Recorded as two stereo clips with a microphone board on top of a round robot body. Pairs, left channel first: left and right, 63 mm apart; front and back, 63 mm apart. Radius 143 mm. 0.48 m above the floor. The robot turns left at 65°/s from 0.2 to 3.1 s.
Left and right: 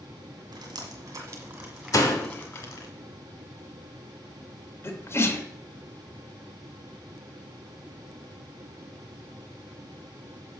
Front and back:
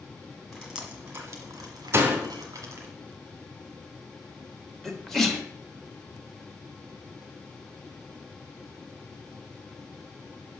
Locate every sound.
0.5 s dripping: 90° right, 1.3 m; by 2.9 s 120° left, 1.3 m
1.9 s a door slam: 130° left, 1.1 m; by 2.3 s 105° left, 1.1 m
4.8 s a sneeze: 85° left, 1.5 m